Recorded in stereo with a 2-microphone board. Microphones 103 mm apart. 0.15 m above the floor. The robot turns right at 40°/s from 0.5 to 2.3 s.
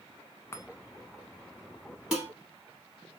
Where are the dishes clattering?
10° right (ahead or behind), 2.5 m; by 2.3 s centre (ahead or behind), 2.5 m.